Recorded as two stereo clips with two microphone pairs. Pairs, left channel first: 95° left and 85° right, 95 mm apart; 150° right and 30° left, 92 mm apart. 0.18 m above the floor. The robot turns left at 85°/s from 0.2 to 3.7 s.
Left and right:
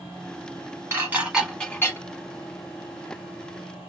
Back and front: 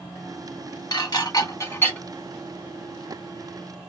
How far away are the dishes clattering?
About 1.1 m.